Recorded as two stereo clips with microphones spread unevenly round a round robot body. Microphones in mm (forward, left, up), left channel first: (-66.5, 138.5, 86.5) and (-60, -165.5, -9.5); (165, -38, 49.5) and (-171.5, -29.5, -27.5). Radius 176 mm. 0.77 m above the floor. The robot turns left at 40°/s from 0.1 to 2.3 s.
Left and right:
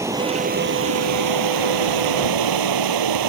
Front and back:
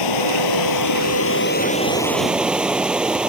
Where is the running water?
5° right; by 3.3 s 90° right.